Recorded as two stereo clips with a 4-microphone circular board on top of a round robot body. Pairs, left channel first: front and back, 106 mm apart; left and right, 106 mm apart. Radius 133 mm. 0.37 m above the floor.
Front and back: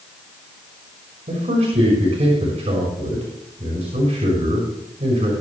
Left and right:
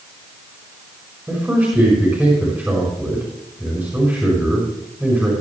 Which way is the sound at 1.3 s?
160° right.